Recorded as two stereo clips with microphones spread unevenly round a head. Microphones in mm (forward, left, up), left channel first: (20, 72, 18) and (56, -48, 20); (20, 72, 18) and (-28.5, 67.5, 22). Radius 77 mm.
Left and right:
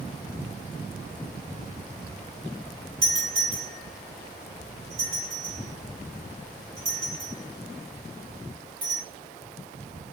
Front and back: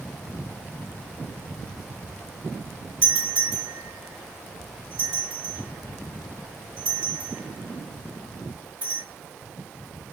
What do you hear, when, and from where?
3.0 s a doorbell: 130° right, 3 m